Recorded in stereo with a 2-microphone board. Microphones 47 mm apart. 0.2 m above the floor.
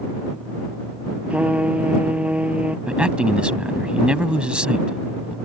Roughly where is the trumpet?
Right.